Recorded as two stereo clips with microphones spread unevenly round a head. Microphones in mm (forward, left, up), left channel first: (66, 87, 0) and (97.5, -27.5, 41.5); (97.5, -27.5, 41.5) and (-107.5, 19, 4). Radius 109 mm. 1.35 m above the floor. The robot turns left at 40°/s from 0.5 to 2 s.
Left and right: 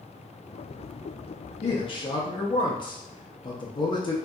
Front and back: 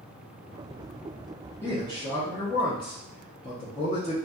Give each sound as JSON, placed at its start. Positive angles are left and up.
{"t": 1.6, "sound": "a man speaking", "azimuth_deg": 65, "distance_m": 0.6}